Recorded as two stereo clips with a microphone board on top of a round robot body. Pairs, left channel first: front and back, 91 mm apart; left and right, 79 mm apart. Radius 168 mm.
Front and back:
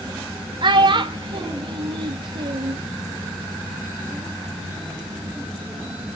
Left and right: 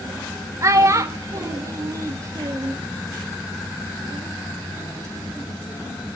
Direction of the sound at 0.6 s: 145° right.